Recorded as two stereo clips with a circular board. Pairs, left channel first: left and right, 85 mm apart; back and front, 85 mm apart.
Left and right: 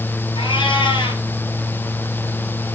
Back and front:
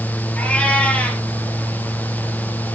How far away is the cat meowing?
About 2.5 m.